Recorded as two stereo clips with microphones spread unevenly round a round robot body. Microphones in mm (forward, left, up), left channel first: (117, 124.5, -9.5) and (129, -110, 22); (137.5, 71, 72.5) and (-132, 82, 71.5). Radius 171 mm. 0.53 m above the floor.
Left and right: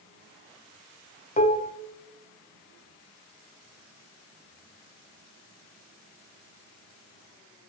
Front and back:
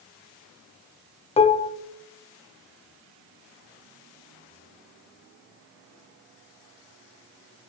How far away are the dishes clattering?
About 0.5 m.